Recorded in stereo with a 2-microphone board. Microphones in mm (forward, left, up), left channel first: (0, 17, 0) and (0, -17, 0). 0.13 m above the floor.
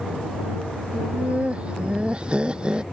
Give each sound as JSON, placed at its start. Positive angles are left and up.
{"t": 0.9, "sound": "laughter", "side_deg": -40}